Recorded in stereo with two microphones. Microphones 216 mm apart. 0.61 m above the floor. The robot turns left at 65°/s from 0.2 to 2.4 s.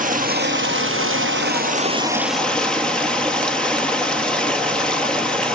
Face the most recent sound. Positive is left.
turn(degrees=175)